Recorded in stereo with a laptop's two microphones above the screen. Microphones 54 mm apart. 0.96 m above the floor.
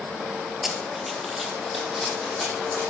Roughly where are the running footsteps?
Centre.